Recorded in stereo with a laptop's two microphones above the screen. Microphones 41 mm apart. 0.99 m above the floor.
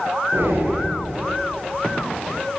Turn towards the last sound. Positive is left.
turn(degrees=-80)